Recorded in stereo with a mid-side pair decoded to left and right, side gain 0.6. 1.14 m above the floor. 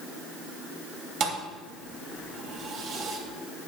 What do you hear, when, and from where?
1.2 s a thud: 60° right, 2.5 m